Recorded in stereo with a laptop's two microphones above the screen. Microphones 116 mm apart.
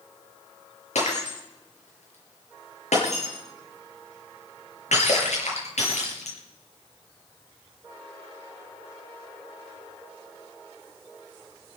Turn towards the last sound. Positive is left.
turn(degrees=80)